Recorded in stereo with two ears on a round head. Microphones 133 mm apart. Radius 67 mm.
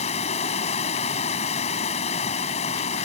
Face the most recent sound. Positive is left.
turn(degrees=50)  # may be behind; listen again after turning